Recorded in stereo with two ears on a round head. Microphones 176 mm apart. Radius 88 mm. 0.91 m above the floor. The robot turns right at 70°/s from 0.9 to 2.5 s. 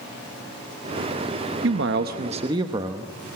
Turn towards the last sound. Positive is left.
turn(degrees=-25)